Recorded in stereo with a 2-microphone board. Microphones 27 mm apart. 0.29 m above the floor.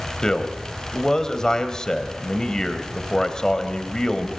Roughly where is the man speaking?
Left.